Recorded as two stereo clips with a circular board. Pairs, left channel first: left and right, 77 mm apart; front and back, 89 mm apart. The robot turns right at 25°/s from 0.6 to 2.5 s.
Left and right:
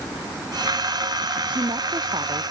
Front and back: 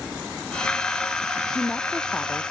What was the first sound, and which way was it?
A woman speaking, 85° right.